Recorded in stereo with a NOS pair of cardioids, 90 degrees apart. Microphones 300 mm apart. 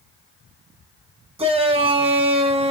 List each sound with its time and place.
1.4 s a shout: 20° right, 1.2 m